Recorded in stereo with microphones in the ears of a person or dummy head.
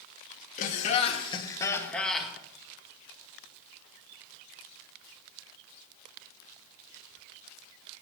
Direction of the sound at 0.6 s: 45° left (ahead or behind).